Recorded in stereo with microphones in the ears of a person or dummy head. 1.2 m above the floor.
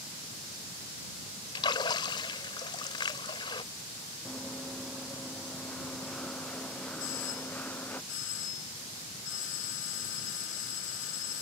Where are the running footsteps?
Centre (ahead or behind); by 8.0 s 10° left (ahead or behind).